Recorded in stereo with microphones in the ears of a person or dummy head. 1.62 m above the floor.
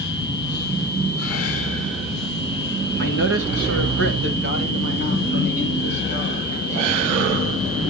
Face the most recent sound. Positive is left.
turn(degrees=-35)  # may be behind; listen again after turning